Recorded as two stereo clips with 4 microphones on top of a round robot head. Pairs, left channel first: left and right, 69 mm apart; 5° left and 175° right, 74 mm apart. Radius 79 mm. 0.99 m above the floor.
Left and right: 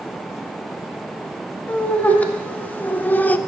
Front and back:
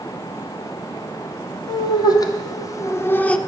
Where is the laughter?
20° left, 1.6 m; by 3.4 s 65° left, 0.6 m.